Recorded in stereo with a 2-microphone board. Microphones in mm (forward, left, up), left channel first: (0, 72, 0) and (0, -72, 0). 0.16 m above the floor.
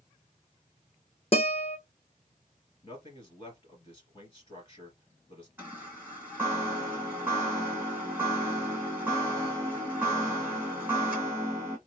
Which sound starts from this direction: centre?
A chime, at 5.6 s.